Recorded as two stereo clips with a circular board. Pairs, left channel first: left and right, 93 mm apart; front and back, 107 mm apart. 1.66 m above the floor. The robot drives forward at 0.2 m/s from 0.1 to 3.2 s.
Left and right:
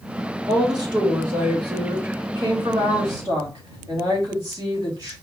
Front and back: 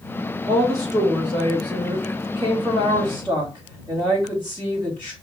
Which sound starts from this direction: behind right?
A woman speaking, at 0.5 s.